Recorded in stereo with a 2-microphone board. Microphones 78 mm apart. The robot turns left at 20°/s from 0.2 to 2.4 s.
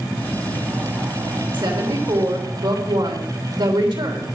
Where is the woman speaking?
80° right, 3.5 m; by 4.3 s 85° right, 3.5 m.